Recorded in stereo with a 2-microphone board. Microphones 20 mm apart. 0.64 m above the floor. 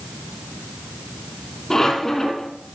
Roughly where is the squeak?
Left.